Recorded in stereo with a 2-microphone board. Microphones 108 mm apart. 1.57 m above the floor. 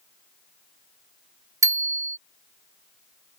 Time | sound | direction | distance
1.6 | a bicycle bell | 30° right (ahead or behind) | ?